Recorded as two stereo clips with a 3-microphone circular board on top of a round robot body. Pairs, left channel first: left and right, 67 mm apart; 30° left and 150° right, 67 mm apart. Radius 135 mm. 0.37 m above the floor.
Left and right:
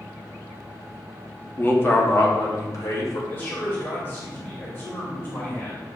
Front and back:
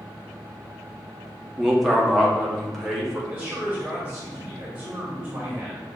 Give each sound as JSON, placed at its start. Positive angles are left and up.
{"t": 1.6, "sound": "a man speaking", "azimuth_deg": 125, "distance_m": 1.1}
{"t": 3.3, "sound": "a man speaking", "azimuth_deg": 135, "distance_m": 1.4}